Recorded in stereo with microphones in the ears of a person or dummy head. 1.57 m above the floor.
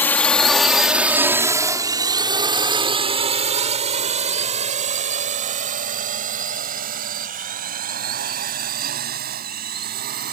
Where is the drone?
15° left (ahead or behind); by 10.3 s 50° right (ahead or behind).